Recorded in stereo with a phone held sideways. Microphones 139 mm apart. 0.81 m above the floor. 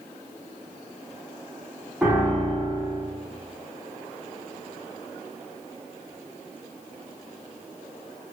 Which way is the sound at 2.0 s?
10° right (ahead or behind).